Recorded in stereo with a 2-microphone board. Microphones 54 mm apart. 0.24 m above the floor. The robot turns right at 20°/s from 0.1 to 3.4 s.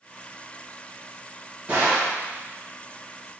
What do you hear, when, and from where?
1.7 s a gunshot: 25° right (ahead or behind), 2.0 m; by 2.2 s 20° right (ahead or behind), 2.0 m